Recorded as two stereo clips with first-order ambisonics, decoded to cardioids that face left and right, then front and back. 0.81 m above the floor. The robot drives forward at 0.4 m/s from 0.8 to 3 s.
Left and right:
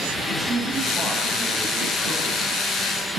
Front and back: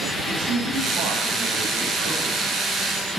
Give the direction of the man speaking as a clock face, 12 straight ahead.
6 o'clock.